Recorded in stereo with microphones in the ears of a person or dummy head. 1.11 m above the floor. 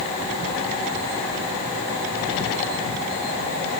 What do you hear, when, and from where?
Only background noise.